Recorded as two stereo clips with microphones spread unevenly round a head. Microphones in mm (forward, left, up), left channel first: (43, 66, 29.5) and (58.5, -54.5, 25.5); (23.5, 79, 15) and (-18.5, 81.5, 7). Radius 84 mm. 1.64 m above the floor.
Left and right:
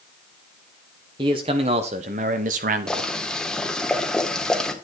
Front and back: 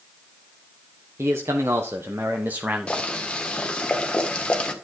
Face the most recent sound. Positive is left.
turn(degrees=20)